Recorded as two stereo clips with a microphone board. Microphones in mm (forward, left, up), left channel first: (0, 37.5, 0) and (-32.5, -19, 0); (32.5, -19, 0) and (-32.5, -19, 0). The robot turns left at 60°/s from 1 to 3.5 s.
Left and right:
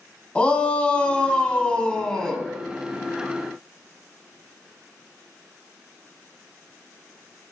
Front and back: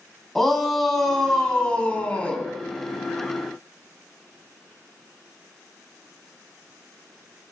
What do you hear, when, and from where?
0.3 s a shout: 75° left, 1.3 m; by 2.5 s 10° right, 1.3 m